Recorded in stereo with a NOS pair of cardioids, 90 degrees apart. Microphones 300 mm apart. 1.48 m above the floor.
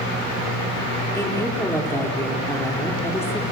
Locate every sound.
1.1 s a woman speaking: 10° left, 4.5 m